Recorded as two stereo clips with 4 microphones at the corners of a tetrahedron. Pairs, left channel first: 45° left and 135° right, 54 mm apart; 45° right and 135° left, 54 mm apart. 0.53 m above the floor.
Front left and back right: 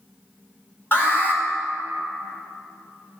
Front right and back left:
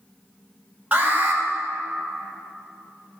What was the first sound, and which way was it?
An alarm, 80° left.